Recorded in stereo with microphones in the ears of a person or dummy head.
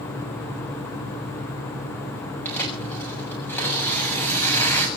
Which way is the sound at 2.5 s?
10° left (ahead or behind).